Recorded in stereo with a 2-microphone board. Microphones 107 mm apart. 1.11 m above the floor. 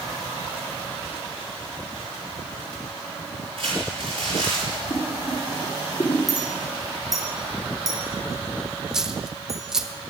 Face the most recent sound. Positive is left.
turn(degrees=-5)  # may be behind; listen again after turning